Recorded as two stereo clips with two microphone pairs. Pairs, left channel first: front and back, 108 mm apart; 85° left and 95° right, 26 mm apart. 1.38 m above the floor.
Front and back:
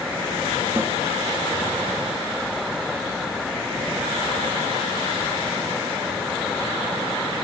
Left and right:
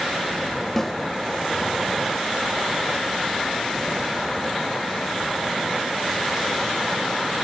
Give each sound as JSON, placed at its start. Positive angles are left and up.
{"t": 0.8, "sound": "a snare drum", "azimuth_deg": 140, "distance_m": 1.2}